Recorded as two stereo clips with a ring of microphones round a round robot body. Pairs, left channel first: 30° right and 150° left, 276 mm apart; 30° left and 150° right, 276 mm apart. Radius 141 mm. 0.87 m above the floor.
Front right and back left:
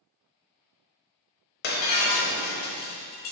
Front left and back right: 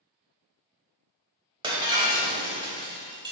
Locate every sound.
1.6 s breaking glass: 80° right, 1.0 m